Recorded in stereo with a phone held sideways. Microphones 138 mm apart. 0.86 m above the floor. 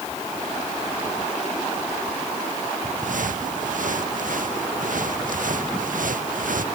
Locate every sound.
3.0 s footsteps: 80° right; by 6.7 s 85° right